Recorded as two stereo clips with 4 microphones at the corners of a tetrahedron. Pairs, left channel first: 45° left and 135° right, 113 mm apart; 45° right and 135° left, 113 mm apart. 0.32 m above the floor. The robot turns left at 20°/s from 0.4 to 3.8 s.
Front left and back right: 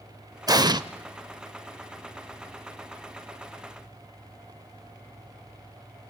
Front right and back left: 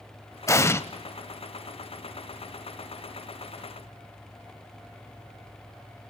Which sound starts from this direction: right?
An explosion, at 0.5 s.